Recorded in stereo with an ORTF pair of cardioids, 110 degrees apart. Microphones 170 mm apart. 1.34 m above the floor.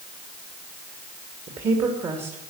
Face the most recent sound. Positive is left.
turn(degrees=-40)